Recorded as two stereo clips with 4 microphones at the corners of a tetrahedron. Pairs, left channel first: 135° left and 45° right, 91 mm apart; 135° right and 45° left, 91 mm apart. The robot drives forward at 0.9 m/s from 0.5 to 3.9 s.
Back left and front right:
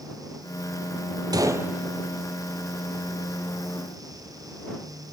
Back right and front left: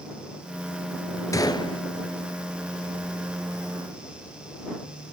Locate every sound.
1.3 s a gunshot: 85° right, 0.8 m; by 1.8 s 120° right, 0.9 m